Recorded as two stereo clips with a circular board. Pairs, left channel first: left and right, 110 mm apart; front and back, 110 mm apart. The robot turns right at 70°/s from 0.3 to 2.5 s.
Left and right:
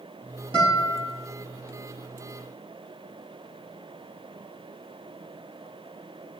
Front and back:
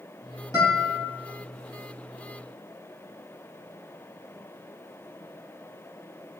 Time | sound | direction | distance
0.5 | a guitar | 55° right | 2.5 m